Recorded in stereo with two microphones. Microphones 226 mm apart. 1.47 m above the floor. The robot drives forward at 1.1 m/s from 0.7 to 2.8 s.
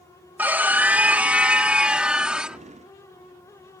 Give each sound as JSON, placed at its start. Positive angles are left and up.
{"t": 0.4, "sound": "a scream", "side_deg": -10}